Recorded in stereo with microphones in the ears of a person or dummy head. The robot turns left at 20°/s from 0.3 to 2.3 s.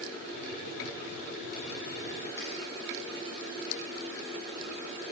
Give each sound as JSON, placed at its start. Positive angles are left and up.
{"t": 2.4, "sound": "a finger snap", "side_deg": 10, "distance_m": 1.9}